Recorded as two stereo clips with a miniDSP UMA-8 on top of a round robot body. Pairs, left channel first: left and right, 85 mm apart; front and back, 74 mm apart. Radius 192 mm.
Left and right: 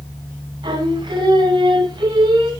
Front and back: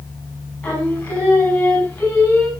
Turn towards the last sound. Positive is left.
turn(degrees=-75)